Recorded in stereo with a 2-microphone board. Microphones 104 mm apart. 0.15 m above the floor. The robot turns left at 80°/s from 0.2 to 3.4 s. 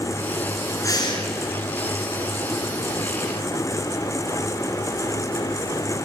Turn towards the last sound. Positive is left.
turn(degrees=-70)